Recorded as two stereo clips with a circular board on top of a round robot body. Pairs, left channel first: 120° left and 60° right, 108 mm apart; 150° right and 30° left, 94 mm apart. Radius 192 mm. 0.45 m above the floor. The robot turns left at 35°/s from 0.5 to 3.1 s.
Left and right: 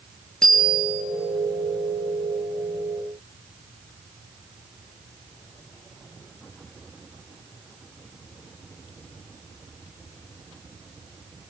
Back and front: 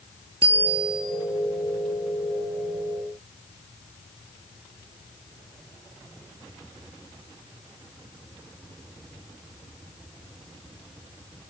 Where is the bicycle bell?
35° left, 8 m; by 1.0 s 15° left, 8 m.